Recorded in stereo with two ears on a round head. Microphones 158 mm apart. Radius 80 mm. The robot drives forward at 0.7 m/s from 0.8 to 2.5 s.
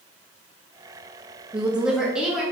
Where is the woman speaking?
5° right (ahead or behind), 0.6 m.